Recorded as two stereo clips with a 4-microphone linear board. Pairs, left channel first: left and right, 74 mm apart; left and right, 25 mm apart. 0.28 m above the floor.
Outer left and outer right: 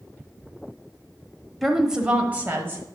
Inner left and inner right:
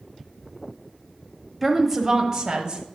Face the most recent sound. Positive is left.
turn(degrees=-35)  # may be behind; listen again after turning